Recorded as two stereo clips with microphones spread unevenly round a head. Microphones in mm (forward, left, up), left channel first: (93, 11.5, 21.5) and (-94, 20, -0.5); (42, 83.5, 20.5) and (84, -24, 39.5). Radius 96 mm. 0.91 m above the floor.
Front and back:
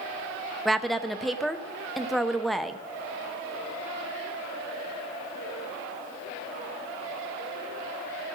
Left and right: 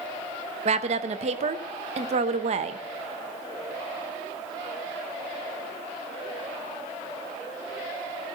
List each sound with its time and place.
0.7 s a woman speaking: 95° right, 0.7 m